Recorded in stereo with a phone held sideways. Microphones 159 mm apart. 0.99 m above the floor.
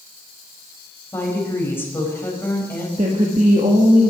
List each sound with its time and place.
1.1 s a woman speaking: 15° left (ahead or behind), 4 m
3.0 s a woman speaking: 50° right (ahead or behind), 1.7 m